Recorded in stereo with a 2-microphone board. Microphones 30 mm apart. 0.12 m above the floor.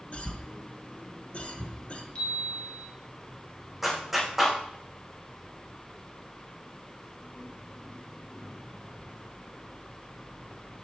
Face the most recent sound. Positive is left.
turn(degrees=-10)  # may be behind; listen again after turning